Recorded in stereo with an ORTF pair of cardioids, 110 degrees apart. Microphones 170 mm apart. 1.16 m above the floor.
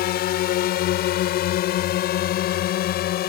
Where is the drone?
70° left.